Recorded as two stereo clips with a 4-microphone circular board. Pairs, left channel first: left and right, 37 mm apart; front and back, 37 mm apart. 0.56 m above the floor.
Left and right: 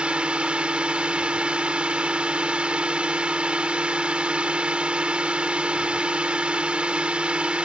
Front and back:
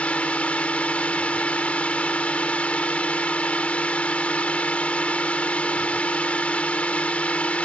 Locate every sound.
0.0 s a drone: 40° right